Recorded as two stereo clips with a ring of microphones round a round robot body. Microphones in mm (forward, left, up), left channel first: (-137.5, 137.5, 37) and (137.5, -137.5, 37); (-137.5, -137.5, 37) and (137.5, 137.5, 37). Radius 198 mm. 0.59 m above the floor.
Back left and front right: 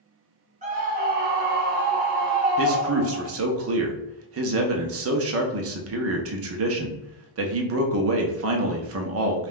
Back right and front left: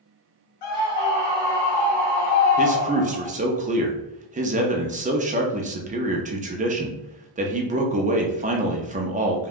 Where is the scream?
115° right, 1.8 m; by 3.3 s 105° right, 3 m.